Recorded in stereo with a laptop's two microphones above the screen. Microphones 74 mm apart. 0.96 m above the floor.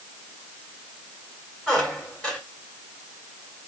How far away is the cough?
No cough in this recording.